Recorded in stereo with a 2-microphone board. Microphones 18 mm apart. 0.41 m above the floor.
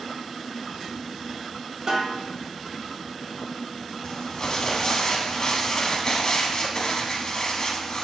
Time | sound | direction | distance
1.9 | a snare drum | 45° right (ahead or behind) | 0.7 m
4.0 | crumpling | 40° left (ahead or behind) | 0.5 m